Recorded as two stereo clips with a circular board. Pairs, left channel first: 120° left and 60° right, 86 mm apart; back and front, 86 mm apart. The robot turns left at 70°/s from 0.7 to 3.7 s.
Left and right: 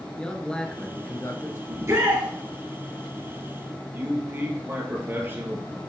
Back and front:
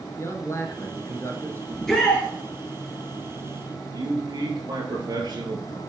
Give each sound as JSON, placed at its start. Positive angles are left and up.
{"t": 0.2, "sound": "a man speaking", "azimuth_deg": -170, "distance_m": 1.2}
{"t": 1.7, "sound": "a shout", "azimuth_deg": -85, "distance_m": 1.6}
{"t": 3.9, "sound": "a man speaking", "azimuth_deg": 0, "distance_m": 2.0}